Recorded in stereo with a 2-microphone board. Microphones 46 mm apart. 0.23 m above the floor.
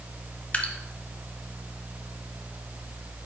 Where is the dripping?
25° left (ahead or behind), 1.1 m.